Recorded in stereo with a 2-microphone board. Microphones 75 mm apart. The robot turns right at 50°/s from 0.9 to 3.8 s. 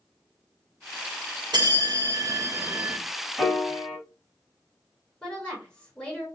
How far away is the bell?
About 0.7 m.